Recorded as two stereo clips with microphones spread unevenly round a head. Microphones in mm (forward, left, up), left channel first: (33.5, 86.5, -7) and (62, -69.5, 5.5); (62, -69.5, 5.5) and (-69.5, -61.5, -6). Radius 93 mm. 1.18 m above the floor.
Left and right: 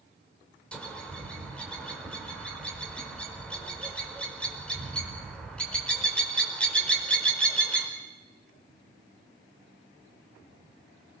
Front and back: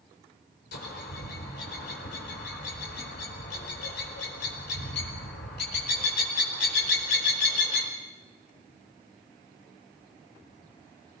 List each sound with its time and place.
0.7 s a bird: 15° left, 5 m